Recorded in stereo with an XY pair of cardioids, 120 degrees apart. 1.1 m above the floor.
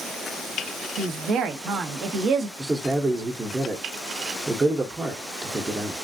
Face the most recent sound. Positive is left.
turn(degrees=-25)